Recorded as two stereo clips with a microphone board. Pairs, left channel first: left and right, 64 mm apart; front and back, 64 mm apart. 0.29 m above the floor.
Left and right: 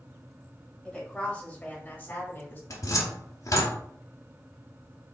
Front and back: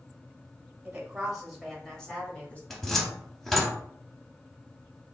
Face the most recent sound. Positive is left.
turn(degrees=85)